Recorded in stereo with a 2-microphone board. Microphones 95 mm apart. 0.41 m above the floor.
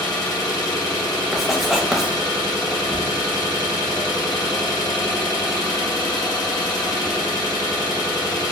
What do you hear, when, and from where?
0.0 s an engine running: 45° left (ahead or behind), 0.8 m
1.3 s writing: centre (ahead or behind), 0.5 m